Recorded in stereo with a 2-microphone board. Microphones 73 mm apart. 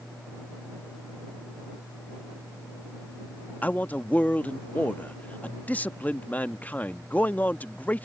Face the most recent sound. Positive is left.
turn(degrees=20)  # may be behind; listen again after turning